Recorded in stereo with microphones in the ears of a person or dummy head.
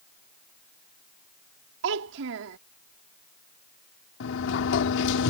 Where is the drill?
No drill in this recording.